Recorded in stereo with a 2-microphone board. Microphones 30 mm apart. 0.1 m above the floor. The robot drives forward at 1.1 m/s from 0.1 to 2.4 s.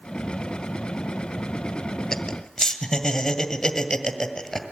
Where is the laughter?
10° left (ahead or behind), 1.6 m.